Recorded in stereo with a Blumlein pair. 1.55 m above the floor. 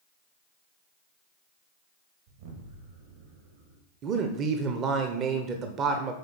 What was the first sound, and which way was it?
An explosion, 60° right.